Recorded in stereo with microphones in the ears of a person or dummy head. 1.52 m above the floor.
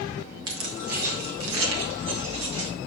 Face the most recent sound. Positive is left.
turn(degrees=-85)